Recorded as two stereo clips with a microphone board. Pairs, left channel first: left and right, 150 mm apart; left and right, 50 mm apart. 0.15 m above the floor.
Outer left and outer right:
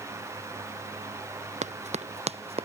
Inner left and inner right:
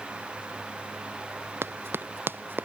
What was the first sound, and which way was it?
Running footsteps, 50° right (ahead or behind).